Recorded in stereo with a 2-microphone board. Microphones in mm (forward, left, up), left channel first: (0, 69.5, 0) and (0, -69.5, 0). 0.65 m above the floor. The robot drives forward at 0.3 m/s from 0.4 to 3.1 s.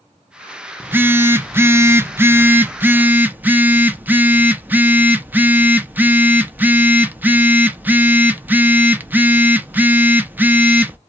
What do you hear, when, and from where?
0.8 s a phone buzzing: 15° right (ahead or behind), 0.6 m